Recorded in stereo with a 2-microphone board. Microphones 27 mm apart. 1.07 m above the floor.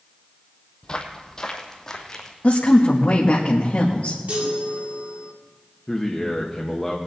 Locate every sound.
0.8 s footsteps: 35° left (ahead or behind), 1.4 m; by 2.3 s 20° left (ahead or behind), 2 m
2.4 s a woman speaking: 70° left (ahead or behind), 1.4 m
4.3 s a chime: 65° right (ahead or behind), 2 m
5.9 s a man speaking: 20° left (ahead or behind), 1.1 m